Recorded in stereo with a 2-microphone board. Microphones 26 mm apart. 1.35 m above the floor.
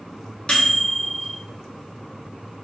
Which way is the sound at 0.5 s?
35° left (ahead or behind).